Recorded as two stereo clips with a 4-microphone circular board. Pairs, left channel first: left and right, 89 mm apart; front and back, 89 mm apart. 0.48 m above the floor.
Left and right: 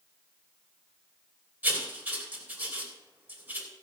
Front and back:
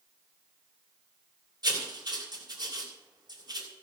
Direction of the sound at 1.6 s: 155° right.